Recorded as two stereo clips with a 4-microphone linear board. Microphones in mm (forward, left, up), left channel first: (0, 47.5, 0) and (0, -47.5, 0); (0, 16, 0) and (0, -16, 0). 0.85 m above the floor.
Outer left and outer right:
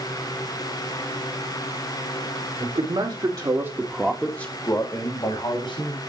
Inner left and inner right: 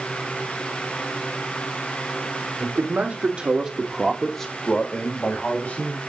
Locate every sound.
2.6 s a man speaking: 65° right (ahead or behind), 2.5 m; by 6.0 s 65° left (ahead or behind), 3 m